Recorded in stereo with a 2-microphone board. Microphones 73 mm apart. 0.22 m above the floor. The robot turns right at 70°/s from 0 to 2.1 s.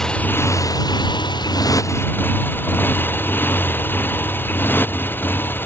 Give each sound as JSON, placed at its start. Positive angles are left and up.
{"t": 0.0, "sound": "a motorcycle", "azimuth_deg": 5}